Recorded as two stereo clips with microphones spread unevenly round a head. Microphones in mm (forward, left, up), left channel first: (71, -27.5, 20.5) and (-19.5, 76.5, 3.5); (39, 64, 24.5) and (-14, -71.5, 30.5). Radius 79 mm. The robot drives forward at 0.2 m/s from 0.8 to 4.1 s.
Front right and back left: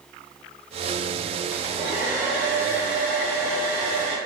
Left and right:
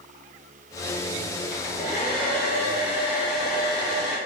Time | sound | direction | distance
1.5 | a hair dryer | 70° left | 1.4 m